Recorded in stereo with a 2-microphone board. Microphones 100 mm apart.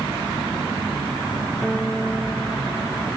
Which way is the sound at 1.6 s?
Centre (ahead or behind).